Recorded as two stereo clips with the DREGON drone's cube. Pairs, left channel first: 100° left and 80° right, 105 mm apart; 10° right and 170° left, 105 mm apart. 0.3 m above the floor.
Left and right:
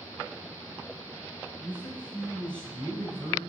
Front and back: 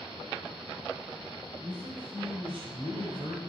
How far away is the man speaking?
About 1.8 m.